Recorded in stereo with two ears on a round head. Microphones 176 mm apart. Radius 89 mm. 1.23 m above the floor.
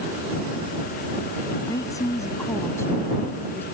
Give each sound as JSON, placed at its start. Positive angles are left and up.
{"t": 1.7, "sound": "a woman speaking", "side_deg": 20}